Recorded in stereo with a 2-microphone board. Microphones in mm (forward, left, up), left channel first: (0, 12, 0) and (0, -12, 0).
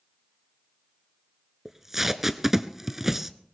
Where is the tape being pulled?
15° right (ahead or behind), 0.8 m.